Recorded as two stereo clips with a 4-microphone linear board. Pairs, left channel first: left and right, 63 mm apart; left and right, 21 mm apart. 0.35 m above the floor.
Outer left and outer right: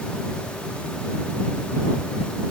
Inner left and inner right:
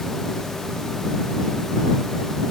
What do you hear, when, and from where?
Only background noise.